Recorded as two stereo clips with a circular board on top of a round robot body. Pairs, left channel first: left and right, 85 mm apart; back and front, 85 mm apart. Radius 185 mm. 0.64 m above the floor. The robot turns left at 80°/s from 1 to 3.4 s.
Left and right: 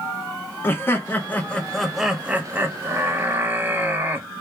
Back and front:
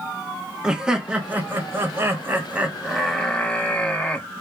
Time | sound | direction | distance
0.6 | laughter | 70° left | 0.8 m